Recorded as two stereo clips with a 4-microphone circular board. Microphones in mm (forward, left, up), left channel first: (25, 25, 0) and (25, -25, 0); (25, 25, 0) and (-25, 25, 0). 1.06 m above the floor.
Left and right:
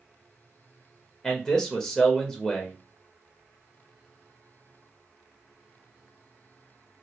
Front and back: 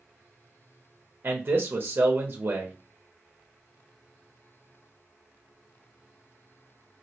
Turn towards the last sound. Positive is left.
turn(degrees=155)